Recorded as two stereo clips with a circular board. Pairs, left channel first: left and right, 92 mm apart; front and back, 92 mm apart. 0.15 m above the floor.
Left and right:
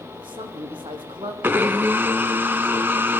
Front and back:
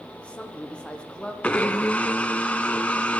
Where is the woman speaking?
75° right, 7 m.